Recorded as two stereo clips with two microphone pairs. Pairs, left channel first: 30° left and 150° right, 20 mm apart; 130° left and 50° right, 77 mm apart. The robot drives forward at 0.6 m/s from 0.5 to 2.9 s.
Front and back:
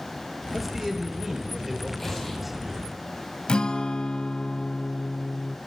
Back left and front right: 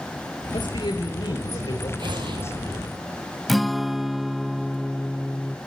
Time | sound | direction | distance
0.5 | a man speaking | 130° left | 5.5 m
2.0 | an explosion | 40° right | 4.5 m
3.5 | a guitar | 40° left | 0.7 m